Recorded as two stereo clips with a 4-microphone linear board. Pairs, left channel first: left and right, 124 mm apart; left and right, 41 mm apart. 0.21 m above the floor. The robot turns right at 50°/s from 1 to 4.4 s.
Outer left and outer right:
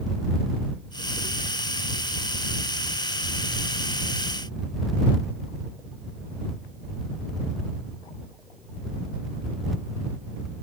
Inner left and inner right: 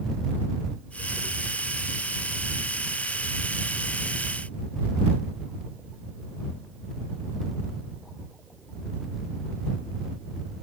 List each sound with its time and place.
Only background noise.